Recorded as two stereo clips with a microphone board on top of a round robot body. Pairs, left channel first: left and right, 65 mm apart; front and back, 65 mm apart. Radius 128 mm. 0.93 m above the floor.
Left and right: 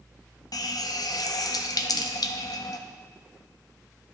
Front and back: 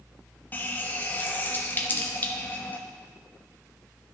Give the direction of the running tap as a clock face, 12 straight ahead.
10 o'clock.